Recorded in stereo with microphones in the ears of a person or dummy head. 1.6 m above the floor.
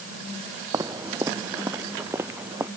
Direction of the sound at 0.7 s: 20° right (ahead or behind).